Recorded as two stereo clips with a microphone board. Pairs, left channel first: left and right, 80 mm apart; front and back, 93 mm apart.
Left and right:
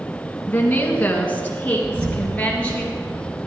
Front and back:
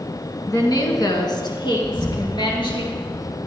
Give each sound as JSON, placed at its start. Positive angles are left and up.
{"t": 0.5, "sound": "a woman speaking", "azimuth_deg": 30, "distance_m": 1.8}
{"t": 1.8, "sound": "an explosion", "azimuth_deg": -90, "distance_m": 1.2}